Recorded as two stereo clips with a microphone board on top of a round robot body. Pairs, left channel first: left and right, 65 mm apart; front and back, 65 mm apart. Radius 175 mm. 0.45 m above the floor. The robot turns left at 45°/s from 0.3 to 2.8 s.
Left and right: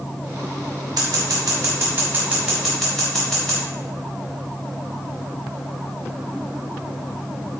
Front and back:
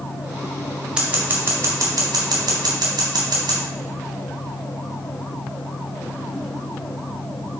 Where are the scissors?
100° right, 0.5 m; by 3.6 s 175° left, 0.5 m.